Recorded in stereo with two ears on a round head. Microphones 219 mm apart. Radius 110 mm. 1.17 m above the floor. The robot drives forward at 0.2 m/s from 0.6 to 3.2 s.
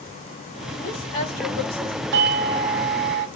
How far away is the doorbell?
About 0.7 m.